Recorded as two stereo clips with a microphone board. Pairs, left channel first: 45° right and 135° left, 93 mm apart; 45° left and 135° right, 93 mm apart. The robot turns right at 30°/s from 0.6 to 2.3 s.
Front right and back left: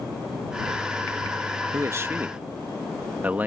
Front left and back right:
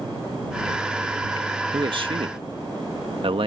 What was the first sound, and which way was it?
A man speaking, 170° right.